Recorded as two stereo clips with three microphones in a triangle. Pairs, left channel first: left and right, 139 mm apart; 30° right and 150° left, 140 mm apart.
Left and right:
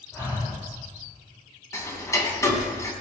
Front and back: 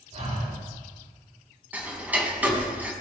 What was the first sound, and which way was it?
Breathing, 160° left.